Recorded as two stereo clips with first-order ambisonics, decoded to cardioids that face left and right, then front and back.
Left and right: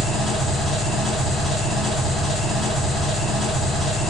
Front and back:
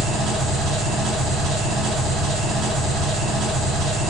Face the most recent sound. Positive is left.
turn(degrees=165)